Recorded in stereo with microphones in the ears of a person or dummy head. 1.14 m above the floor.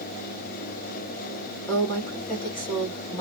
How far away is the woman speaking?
About 1.9 m.